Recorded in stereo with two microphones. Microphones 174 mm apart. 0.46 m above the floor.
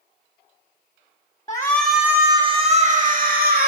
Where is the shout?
20° left (ahead or behind), 0.9 m; by 3.7 s 60° right (ahead or behind), 1.6 m.